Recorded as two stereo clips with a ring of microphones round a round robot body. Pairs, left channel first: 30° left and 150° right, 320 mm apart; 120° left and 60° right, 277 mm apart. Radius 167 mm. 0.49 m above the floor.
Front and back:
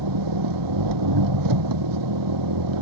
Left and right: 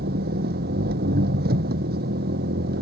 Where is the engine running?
125° right.